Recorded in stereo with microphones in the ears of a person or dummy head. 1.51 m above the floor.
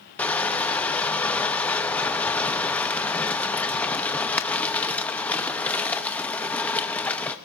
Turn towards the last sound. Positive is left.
turn(degrees=10)  # may be behind; listen again after turning